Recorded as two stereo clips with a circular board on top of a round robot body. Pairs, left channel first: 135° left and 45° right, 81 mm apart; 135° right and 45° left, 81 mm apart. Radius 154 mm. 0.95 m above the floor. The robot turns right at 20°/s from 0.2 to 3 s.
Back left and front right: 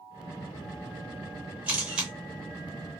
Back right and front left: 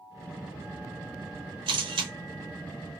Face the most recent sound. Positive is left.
turn(degrees=60)